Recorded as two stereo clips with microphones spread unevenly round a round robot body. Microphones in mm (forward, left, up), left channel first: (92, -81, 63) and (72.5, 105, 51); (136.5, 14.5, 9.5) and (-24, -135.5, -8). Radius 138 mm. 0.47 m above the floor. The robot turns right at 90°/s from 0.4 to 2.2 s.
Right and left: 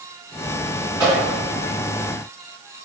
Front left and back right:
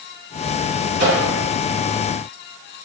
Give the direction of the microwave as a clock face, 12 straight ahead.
6 o'clock.